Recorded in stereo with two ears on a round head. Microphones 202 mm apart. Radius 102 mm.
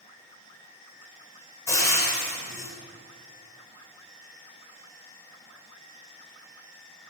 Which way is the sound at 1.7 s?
15° left (ahead or behind).